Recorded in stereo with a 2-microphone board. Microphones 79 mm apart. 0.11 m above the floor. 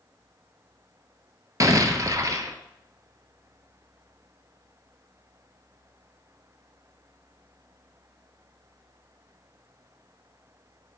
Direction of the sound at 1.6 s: 50° right (ahead or behind).